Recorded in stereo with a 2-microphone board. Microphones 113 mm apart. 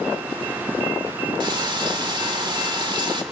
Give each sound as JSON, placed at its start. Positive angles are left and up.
{"t": 1.4, "sound": "frying", "side_deg": -45, "distance_m": 1.4}